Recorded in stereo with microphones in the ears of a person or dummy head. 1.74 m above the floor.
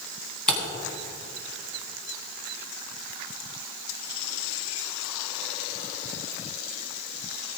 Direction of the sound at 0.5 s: 5° left (ahead or behind).